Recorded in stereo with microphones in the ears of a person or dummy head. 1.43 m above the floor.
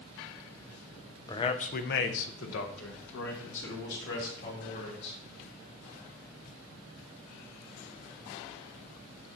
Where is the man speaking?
20° left (ahead or behind), 0.6 m; by 5.2 s 60° left (ahead or behind), 2.5 m.